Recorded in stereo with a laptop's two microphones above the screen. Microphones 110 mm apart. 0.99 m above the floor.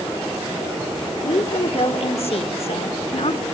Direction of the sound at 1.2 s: 65° left (ahead or behind).